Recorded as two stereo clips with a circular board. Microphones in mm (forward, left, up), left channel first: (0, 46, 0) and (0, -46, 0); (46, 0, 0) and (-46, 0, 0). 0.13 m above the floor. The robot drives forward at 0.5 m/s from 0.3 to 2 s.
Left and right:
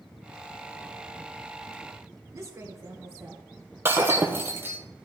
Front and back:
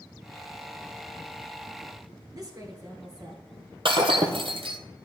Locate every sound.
2.3 s a woman speaking: 140° right, 2.5 m
3.9 s breaking glass: 160° right, 1.1 m